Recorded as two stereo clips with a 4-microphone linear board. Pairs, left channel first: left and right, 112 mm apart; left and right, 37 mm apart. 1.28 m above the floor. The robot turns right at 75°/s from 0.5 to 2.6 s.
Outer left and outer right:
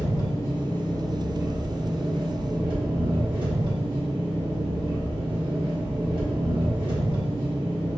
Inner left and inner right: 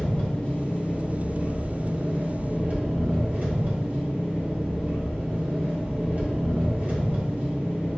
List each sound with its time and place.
0.0 s an engine running: 135° left, 1.2 m; by 8.0 s 70° right, 1.2 m